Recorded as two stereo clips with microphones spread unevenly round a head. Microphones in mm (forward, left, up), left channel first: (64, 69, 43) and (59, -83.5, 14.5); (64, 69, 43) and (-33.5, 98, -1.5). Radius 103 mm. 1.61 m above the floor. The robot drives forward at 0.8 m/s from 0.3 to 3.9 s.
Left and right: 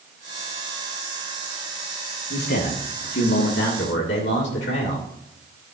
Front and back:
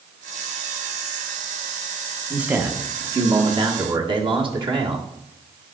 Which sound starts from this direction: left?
A man speaking, at 2.3 s.